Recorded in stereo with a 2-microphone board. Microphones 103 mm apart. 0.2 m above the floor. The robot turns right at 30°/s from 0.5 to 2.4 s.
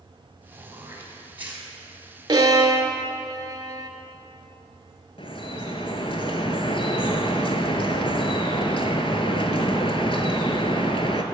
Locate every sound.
0.5 s throat clearing: 30° right (ahead or behind), 1.5 m; by 1.7 s 15° right (ahead or behind), 1.5 m
2.3 s a violin: 45° right (ahead or behind), 0.6 m; by 3.9 s 40° right (ahead or behind), 0.6 m
5.2 s dripping: 60° left (ahead or behind), 0.6 m